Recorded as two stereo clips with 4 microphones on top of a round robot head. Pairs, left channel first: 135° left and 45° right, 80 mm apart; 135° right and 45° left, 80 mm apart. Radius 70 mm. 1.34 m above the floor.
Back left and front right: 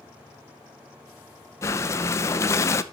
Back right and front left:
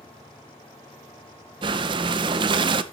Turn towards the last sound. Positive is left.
turn(degrees=75)